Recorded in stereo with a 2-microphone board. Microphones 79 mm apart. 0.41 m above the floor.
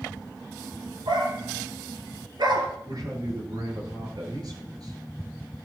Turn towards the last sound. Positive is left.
turn(degrees=-55)  # may be behind; listen again after turning